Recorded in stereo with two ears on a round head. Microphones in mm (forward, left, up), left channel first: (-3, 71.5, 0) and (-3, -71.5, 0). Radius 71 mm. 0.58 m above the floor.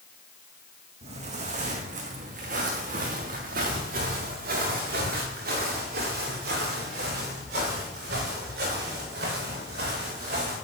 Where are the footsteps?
45° right (ahead or behind), 2.5 m; by 10.6 s 70° right (ahead or behind), 11 m.